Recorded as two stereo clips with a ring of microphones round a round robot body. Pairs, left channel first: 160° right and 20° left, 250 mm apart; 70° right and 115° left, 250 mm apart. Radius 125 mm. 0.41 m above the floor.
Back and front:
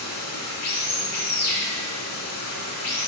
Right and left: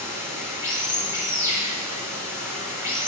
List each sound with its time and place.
0.0 s running water: 170° right, 4.5 m